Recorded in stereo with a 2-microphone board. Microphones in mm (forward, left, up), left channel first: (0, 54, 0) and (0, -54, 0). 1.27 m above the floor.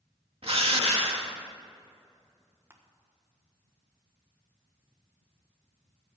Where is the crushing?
20° right (ahead or behind), 1.3 m.